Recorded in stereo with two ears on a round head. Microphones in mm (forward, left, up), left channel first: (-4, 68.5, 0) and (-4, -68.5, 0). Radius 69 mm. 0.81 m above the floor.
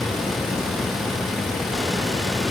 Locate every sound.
Only background noise.